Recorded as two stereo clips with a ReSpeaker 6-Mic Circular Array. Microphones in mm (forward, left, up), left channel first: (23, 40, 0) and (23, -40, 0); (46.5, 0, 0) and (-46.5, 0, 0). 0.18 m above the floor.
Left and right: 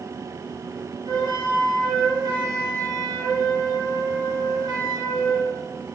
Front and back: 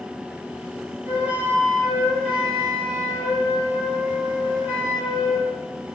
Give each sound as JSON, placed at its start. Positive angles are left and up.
{"t": 1.1, "sound": "a flute", "azimuth_deg": -110, "distance_m": 2.0}